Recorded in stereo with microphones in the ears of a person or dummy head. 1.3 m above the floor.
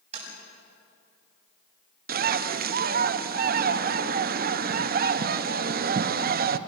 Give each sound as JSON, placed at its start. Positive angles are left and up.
{"t": 0.1, "sound": "tapping", "side_deg": -35, "distance_m": 7.5}
{"t": 2.1, "sound": "a bird", "side_deg": -45, "distance_m": 0.6}